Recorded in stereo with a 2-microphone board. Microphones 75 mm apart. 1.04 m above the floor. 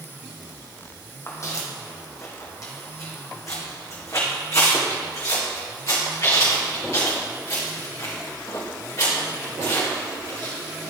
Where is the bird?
No bird in this recording.